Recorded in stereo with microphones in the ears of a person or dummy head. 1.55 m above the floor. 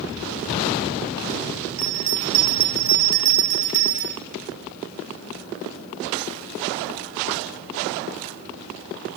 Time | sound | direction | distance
1.8 | a bell | 60° right (ahead or behind) | 1.1 m